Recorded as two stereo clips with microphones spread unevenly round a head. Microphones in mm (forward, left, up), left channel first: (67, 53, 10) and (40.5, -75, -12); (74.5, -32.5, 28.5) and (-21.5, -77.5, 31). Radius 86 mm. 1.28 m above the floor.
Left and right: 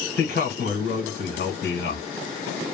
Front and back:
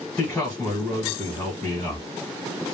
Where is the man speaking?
100° left, 1.3 m.